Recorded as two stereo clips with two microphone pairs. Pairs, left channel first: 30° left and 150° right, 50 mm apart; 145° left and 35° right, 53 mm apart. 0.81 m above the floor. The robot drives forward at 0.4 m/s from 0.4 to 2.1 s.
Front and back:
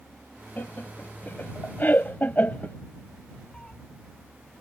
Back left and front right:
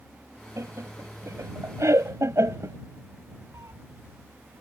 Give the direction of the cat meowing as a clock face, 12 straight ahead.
1 o'clock.